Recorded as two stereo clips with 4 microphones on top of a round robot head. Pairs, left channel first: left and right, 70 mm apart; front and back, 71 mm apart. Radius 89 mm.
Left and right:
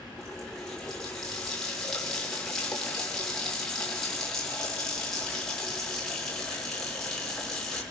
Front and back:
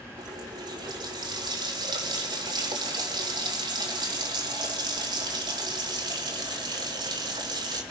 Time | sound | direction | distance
0.2 | a running tap | 175° left | 2 m